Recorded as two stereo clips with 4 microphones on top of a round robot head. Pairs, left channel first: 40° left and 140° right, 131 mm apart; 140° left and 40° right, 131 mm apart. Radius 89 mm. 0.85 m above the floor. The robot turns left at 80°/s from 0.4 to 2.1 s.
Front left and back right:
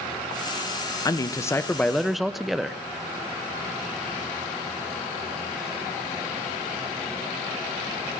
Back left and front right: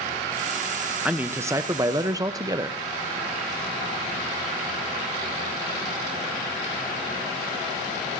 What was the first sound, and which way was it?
A man speaking, 30° left.